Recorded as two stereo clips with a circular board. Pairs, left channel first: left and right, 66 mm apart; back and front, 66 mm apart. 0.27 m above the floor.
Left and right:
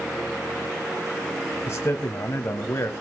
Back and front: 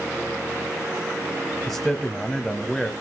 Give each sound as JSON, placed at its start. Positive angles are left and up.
{"t": 1.7, "sound": "a man speaking", "azimuth_deg": 90, "distance_m": 1.2}